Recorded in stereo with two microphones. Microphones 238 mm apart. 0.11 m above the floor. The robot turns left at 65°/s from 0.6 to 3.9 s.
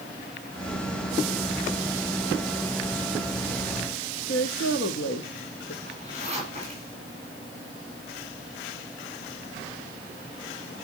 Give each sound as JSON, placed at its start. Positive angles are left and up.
{"t": 4.3, "sound": "a woman speaking", "side_deg": 70, "distance_m": 3.0}
{"t": 5.8, "sound": "a zipper", "side_deg": -25, "distance_m": 9.5}